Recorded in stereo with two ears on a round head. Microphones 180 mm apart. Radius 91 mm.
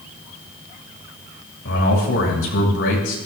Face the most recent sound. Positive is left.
turn(degrees=70)  # may be behind; listen again after turning